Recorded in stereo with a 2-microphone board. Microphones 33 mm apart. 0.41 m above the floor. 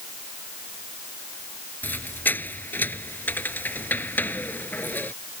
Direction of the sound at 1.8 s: 70° left (ahead or behind).